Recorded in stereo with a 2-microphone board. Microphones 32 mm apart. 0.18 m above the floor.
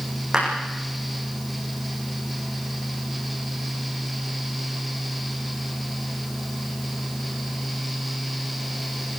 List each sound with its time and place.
0.3 s a clap: 15° right (ahead or behind), 10 m